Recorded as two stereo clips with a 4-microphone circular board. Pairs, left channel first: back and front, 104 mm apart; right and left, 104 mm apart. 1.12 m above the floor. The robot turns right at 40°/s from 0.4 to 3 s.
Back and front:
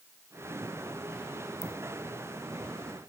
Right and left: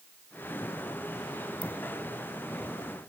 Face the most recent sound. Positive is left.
turn(degrees=-80)